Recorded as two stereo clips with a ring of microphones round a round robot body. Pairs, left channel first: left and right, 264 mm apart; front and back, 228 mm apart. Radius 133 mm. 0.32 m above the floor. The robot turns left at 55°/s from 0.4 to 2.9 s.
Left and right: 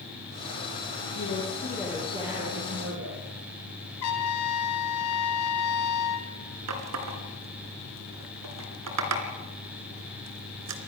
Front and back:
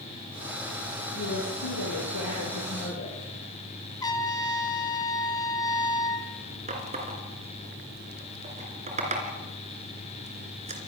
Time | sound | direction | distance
1.1 | a woman speaking | 40° left | 8 m
4.0 | a trumpet | 70° left | 3 m
6.7 | a running tap | 115° right | 3 m